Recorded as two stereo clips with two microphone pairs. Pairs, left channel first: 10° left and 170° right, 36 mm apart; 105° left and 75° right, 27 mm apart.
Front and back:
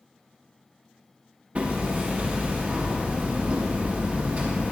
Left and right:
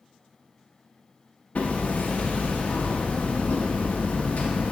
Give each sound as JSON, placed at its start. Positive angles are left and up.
{"t": 1.6, "sound": "hammering", "azimuth_deg": 140, "distance_m": 1.0}